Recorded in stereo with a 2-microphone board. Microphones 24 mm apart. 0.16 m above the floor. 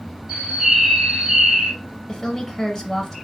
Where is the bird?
25° right (ahead or behind), 1.6 m.